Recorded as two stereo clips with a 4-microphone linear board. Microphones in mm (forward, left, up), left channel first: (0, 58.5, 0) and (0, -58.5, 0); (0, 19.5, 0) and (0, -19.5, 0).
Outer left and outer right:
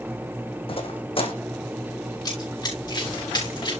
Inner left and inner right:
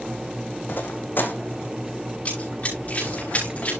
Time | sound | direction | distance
0.7 | footsteps | 50° left (ahead or behind) | 2 m
2.2 | running footsteps | 35° left (ahead or behind) | 6 m